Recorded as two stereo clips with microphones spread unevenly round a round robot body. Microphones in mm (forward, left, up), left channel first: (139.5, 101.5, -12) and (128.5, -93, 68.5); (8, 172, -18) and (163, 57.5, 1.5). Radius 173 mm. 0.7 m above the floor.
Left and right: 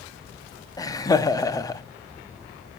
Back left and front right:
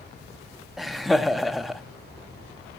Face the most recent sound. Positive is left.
turn(degrees=60)